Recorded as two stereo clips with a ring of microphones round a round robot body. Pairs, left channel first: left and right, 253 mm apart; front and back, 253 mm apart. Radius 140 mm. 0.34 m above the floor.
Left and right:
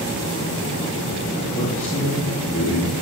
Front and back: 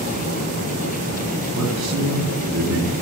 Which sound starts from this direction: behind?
A man speaking, at 1.6 s.